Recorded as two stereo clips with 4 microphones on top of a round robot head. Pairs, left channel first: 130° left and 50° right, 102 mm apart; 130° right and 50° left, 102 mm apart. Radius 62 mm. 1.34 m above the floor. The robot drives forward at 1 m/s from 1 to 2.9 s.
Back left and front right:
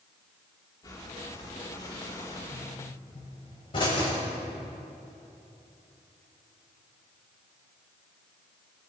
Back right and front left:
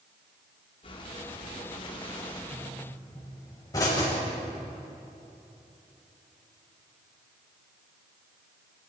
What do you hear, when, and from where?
0.8 s breathing: 170° right, 2.5 m; by 2.4 s 175° right, 4 m
2.5 s a pop: 175° left, 5.5 m